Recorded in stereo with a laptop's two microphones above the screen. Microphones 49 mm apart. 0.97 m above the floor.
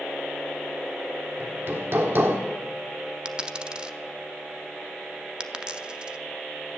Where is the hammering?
55° right (ahead or behind), 1.5 m.